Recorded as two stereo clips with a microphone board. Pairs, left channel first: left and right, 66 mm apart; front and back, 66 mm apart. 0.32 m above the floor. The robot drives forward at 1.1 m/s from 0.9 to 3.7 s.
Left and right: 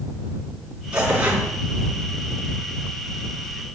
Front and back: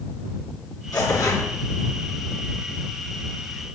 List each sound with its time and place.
0.9 s tearing paper: 15° right, 4.5 m; by 1.5 s 20° right, 3.5 m